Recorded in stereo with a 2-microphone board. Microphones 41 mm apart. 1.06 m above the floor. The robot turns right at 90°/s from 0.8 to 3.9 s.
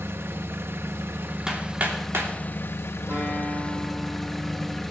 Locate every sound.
0.0 s an engine running: 100° right, 0.8 m; by 4.9 s 175° left, 0.8 m
1.5 s hammering: 15° right (ahead or behind), 2.5 m; by 2.3 s 85° right, 2.5 m
3.1 s a guitar: 70° right, 8.5 m; by 4.8 s straight ahead, 8.5 m